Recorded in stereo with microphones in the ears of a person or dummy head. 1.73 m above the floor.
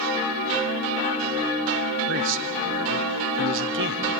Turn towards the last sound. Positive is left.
turn(degrees=-60)  # may be behind; listen again after turning